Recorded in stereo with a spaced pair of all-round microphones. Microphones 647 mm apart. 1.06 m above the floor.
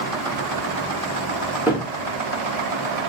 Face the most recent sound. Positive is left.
turn(degrees=-5)  # may be behind; listen again after turning